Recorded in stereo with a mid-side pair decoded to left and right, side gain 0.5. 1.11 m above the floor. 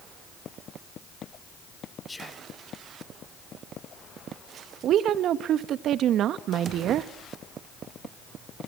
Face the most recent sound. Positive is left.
turn(degrees=-65)